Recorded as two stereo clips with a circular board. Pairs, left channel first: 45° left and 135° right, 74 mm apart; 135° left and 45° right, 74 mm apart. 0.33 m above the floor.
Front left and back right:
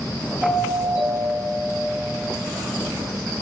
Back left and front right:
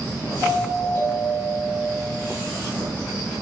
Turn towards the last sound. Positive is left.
turn(degrees=90)